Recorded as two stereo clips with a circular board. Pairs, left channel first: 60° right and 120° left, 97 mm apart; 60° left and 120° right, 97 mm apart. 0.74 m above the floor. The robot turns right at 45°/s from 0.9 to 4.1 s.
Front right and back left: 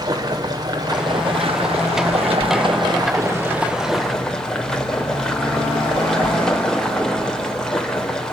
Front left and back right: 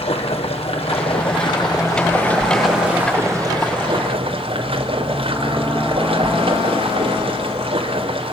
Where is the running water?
75° left, 2.5 m; by 8.3 s 145° right, 2.5 m.